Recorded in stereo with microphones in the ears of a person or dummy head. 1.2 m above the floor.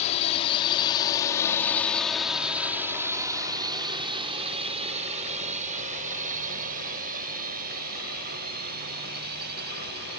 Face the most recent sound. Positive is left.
turn(degrees=-60)  # may be behind; listen again after turning